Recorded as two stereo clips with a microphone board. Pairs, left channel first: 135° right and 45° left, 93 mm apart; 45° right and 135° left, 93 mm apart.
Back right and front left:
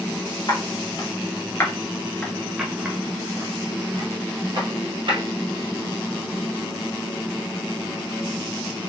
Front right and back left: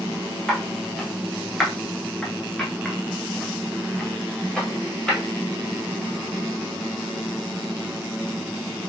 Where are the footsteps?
135° right, 1.4 m; by 5.2 s 40° left, 1.8 m.